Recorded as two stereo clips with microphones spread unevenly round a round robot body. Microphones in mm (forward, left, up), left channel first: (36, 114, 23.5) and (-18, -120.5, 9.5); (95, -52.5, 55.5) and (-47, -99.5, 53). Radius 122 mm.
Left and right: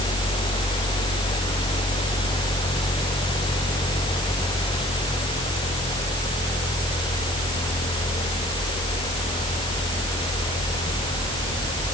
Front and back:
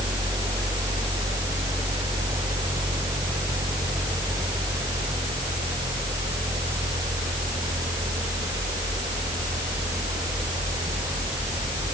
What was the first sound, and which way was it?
Only background noise.